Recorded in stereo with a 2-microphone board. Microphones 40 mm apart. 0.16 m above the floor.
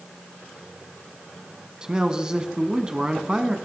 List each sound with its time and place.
1.8 s a man speaking: 20° right (ahead or behind), 1.1 m